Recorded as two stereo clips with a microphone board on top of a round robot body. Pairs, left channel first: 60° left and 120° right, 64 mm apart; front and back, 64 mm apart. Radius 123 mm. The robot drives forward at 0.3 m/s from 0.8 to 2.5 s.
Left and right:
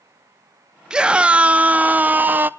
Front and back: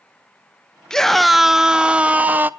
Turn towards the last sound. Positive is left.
turn(degrees=-150)